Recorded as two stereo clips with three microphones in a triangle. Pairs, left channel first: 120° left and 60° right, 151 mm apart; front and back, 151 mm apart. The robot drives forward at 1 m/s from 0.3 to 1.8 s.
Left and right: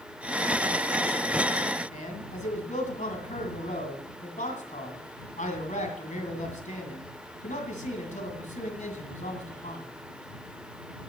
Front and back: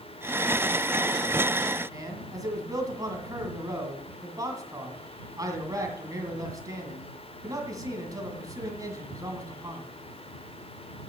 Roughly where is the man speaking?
Behind left.